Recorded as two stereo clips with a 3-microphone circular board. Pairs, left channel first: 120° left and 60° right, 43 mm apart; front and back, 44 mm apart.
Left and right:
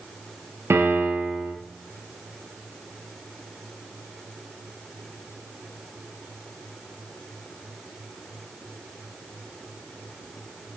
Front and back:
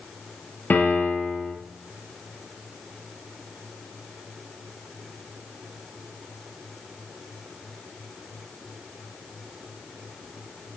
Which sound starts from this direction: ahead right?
A piano, at 0.7 s.